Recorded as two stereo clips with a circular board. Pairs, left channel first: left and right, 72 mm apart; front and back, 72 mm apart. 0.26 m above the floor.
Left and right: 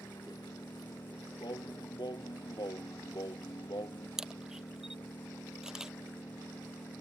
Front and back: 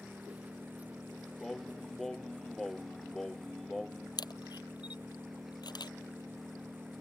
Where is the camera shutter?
10° right.